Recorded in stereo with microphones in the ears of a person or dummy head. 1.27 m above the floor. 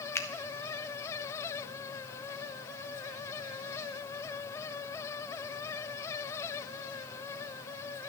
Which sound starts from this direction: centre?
A finger snap, at 0.1 s.